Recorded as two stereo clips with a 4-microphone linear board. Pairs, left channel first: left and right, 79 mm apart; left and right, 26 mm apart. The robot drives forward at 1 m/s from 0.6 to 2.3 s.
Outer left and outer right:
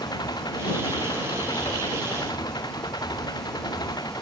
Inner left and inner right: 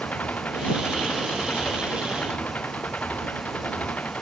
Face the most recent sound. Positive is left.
turn(degrees=60)  # may be behind; listen again after turning